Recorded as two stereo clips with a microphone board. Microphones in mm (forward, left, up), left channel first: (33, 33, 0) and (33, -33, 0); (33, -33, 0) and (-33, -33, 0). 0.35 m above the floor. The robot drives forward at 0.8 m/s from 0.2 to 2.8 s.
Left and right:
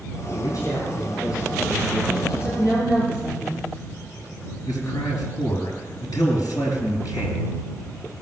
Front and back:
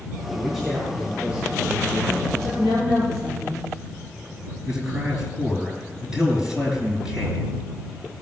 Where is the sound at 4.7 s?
105° left, 4.5 m.